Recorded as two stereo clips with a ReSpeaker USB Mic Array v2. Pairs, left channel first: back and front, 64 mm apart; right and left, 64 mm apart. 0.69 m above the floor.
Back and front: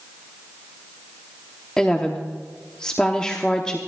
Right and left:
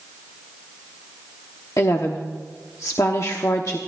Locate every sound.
1.8 s a woman speaking: 105° right, 0.9 m